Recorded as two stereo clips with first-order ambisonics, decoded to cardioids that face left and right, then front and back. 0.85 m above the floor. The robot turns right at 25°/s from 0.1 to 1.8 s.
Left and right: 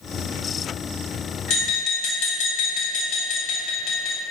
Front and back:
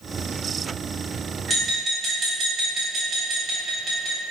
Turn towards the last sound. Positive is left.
turn(degrees=110)